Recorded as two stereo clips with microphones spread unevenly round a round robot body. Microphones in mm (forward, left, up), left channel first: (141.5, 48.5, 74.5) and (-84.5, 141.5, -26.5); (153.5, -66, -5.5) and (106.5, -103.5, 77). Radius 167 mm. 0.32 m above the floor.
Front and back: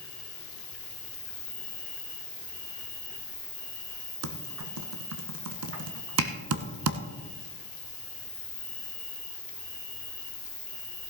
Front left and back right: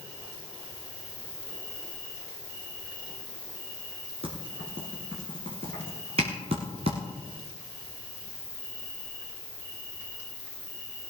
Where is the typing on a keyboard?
175° left, 1.1 m.